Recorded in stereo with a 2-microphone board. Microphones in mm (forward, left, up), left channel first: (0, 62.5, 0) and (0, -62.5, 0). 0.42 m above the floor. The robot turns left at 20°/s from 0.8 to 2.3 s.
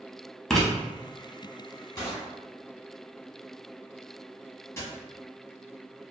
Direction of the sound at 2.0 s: 25° left (ahead or behind).